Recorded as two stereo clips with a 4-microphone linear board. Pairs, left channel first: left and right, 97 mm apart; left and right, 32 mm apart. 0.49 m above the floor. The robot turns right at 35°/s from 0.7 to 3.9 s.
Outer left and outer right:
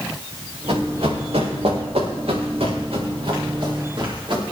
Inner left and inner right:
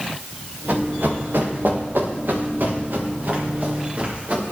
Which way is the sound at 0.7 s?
70° right (ahead or behind).